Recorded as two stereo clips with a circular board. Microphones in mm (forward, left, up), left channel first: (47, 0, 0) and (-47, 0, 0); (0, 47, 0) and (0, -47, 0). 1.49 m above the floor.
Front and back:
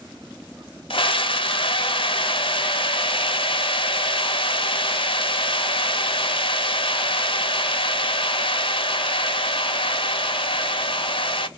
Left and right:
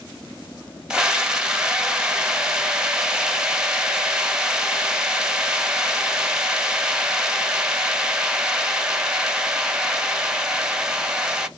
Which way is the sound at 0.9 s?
10° right.